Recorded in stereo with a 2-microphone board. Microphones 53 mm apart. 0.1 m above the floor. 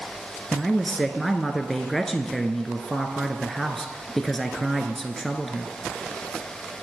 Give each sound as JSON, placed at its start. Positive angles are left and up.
{"t": 0.5, "sound": "a man speaking", "side_deg": 5, "distance_m": 1.3}